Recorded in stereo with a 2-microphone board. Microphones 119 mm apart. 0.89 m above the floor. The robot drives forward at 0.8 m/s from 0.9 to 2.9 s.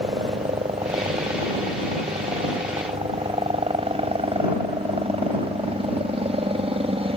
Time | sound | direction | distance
0.0 | a helicopter | 55° right (ahead or behind) | ?